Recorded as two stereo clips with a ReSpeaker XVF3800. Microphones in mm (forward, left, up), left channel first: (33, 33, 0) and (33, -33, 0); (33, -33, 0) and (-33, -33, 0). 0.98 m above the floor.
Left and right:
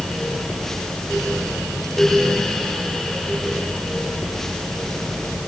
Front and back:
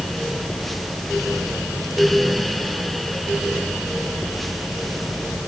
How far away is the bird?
No bird in this recording.